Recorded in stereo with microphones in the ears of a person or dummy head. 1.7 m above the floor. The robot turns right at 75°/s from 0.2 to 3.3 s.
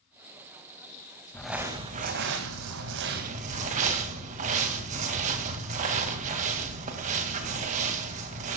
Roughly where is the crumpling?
Behind.